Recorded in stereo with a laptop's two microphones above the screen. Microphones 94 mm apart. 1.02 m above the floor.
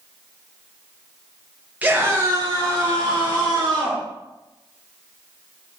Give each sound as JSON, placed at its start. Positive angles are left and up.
{"t": 1.8, "sound": "a scream", "side_deg": -15, "distance_m": 0.8}